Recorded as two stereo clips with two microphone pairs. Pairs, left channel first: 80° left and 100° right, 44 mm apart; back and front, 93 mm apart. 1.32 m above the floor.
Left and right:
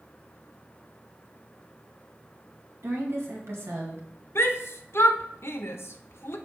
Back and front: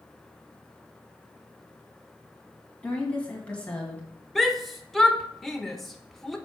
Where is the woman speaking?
100° right, 2.0 m.